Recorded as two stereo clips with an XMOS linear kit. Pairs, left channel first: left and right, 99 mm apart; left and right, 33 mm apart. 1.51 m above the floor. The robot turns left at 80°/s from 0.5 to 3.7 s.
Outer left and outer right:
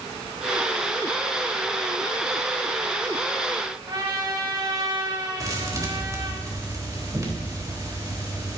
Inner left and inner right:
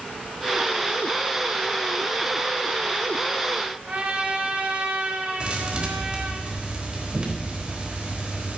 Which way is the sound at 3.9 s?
45° right (ahead or behind).